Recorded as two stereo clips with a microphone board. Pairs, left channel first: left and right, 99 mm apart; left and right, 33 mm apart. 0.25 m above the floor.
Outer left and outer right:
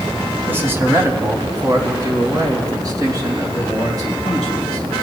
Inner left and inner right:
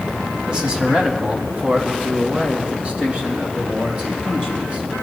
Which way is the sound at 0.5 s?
20° right (ahead or behind).